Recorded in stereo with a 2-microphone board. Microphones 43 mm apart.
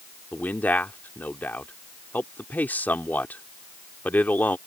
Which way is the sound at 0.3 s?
45° left (ahead or behind).